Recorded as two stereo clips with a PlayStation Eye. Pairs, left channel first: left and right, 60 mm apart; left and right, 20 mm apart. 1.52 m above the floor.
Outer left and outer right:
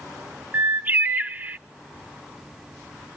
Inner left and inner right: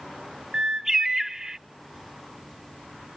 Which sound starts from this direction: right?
A bird, at 0.5 s.